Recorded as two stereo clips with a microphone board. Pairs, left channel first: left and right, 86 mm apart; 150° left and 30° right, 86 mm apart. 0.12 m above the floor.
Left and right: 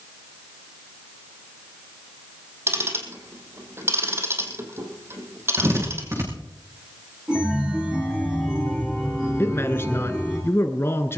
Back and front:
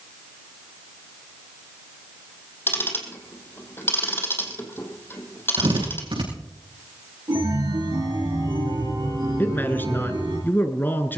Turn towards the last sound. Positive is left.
turn(degrees=110)